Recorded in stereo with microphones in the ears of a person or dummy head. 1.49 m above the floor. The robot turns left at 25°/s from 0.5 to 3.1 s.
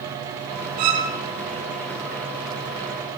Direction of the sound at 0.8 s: 50° right (ahead or behind).